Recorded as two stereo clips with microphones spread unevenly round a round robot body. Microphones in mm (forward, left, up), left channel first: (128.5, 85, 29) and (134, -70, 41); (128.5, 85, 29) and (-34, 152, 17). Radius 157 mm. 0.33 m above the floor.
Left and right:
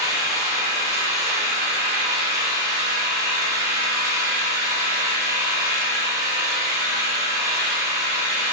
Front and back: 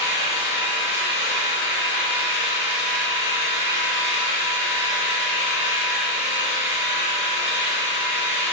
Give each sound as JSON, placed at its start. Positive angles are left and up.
{"t": 0.0, "sound": "an engine running", "azimuth_deg": -15, "distance_m": 0.8}